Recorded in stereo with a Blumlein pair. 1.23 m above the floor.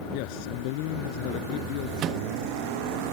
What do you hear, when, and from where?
0.1 s a man speaking: 45° left
2.0 s a microwave: 30° right